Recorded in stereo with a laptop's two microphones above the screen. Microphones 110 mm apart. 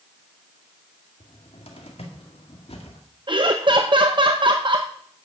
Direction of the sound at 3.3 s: 45° right (ahead or behind).